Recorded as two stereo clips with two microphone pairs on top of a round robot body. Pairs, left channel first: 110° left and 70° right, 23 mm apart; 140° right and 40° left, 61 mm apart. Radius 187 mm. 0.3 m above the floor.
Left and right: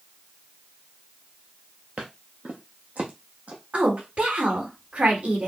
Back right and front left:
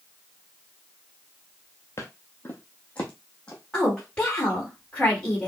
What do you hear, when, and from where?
2.0 s footsteps: 90° right, 0.5 m; by 4.6 s 60° right, 2.5 m
3.7 s a woman speaking: 70° right, 2.5 m